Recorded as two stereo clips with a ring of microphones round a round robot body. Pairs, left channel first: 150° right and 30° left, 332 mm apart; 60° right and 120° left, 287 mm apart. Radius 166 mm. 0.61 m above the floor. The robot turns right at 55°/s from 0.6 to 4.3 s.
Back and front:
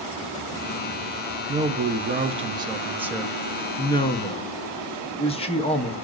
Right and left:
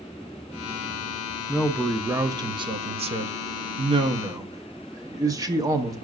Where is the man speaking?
20° left, 0.5 m; by 6.0 s 175° left, 0.5 m.